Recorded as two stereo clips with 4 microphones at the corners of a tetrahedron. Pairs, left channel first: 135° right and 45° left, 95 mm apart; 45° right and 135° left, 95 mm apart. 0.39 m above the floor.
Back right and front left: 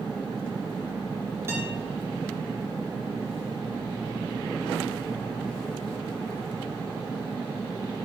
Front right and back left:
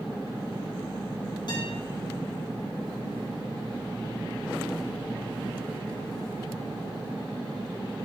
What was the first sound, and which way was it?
A guitar, 15° right.